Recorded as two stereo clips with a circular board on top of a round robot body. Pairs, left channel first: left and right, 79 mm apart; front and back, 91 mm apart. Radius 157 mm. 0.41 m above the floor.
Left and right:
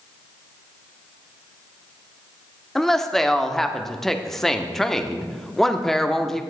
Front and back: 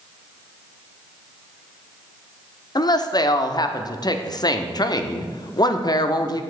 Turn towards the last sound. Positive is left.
turn(degrees=5)